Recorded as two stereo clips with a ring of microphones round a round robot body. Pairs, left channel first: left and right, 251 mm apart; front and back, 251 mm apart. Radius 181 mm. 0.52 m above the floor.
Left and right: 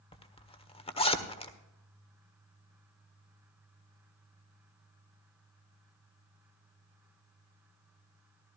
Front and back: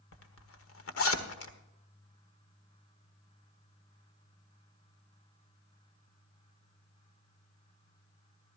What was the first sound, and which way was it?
A zipper, 25° left.